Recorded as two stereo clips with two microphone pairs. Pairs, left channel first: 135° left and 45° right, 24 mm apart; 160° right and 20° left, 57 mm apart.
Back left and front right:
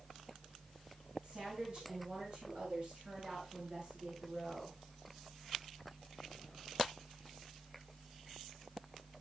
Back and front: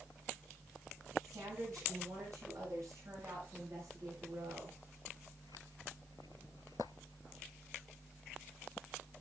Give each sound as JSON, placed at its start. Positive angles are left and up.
{"t": 1.2, "sound": "a woman speaking", "azimuth_deg": -5, "distance_m": 9.0}